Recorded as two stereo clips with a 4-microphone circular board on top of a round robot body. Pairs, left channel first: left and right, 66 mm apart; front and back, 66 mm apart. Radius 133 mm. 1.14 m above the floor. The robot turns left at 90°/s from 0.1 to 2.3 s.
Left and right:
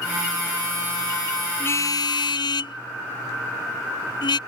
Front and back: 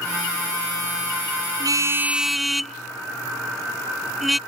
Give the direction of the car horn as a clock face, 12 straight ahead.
7 o'clock.